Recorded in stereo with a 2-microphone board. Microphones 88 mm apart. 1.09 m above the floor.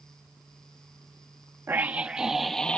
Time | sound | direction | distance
1.7 | a scream | 30° right (ahead or behind) | ?